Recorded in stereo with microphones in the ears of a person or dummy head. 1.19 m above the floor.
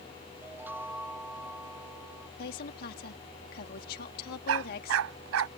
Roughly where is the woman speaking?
Left.